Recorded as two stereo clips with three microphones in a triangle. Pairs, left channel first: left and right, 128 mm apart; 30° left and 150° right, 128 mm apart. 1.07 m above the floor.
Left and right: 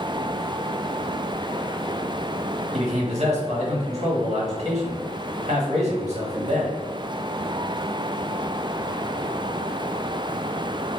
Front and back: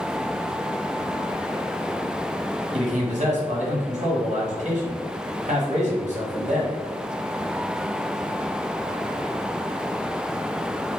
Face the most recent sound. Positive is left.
turn(degrees=-125)